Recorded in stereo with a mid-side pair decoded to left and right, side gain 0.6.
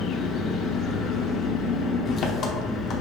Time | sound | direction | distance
0.0 | an engine running | 50° left | 0.9 m